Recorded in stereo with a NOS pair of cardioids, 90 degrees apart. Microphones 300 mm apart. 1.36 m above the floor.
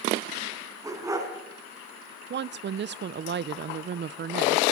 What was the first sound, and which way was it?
A dog barking, 10° right.